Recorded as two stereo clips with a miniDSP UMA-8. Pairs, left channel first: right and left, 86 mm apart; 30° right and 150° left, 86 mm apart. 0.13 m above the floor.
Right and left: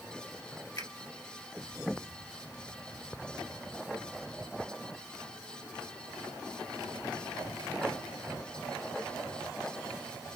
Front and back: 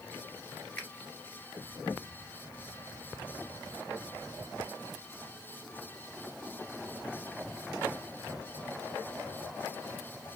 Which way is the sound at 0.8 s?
110° right.